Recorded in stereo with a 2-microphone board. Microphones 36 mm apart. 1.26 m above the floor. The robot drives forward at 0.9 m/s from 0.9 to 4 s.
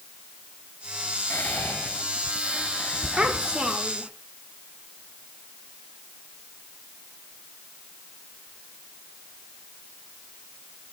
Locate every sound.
1.3 s whispering: 70° left (ahead or behind), 1.5 m; by 3.8 s 30° left (ahead or behind), 3 m
3.2 s a child speaking: 30° right (ahead or behind), 2 m; by 4.1 s 20° right (ahead or behind), 3 m